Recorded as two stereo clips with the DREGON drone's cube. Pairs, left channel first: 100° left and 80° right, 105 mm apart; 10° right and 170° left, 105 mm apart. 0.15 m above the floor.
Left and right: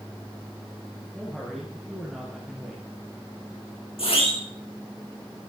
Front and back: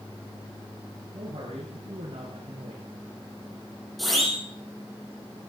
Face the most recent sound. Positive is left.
turn(degrees=80)